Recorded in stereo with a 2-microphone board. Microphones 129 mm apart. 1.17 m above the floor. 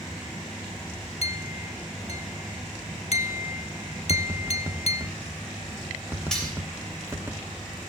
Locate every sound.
1.2 s a clink: 50° left (ahead or behind), 0.7 m
4.1 s tapping: 15° right (ahead or behind), 0.9 m
6.3 s cutlery clinking: 5° left (ahead or behind), 3 m